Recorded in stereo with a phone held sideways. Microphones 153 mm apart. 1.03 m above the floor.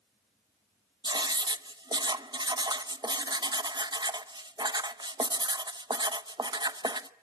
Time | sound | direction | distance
1.0 | writing | 30° right (ahead or behind) | 0.8 m